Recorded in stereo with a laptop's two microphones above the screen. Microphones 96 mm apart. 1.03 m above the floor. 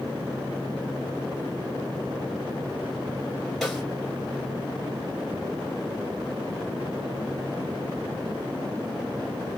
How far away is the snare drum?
About 1.9 m.